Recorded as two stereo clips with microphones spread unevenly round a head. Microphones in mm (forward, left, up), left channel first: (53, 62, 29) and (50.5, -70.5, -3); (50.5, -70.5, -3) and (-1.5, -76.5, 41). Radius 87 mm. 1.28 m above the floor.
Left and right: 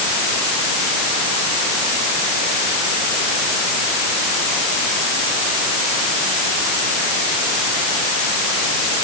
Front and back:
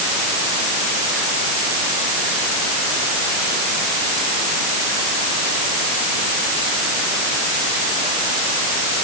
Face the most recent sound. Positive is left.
No sound to turn to.